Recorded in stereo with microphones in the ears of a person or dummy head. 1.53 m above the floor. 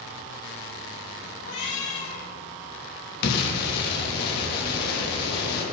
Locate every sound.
1.4 s a cat meowing: 75° left (ahead or behind), 3 m
3.2 s an explosion: 55° left (ahead or behind), 3 m